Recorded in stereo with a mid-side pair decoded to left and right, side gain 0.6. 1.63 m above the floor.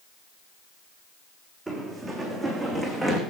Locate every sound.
1.7 s running footsteps: 10° right, 5.5 m; by 3.2 s 5° left, 6 m